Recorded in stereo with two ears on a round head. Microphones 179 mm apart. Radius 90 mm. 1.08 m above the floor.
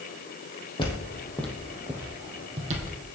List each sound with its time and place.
0.8 s footsteps: 25° left (ahead or behind), 2.5 m; by 3.0 s 45° right (ahead or behind), 2.5 m